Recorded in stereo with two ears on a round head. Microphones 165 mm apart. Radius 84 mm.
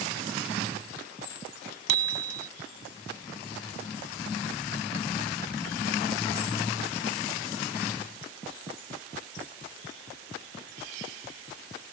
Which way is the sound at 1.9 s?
80° right.